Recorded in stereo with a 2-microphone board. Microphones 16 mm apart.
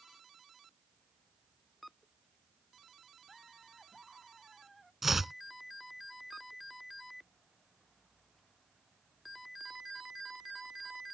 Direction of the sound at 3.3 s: 10° right (ahead or behind).